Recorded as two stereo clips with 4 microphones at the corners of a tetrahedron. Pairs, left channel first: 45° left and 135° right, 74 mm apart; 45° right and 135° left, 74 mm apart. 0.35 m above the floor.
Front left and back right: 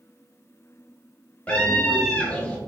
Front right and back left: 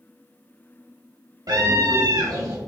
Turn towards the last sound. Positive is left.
turn(degrees=110)